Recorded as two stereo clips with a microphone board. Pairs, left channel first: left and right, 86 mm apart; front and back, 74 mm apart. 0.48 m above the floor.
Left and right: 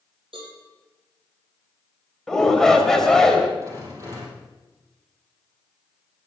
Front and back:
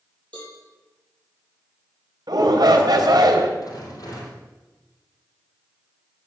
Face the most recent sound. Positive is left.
turn(degrees=-35)